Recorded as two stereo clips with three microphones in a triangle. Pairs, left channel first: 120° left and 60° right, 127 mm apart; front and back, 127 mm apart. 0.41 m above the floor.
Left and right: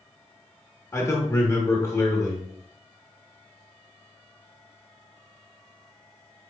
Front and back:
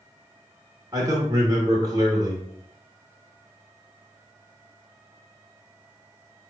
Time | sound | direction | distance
0.9 | a man speaking | 155° left | 0.8 m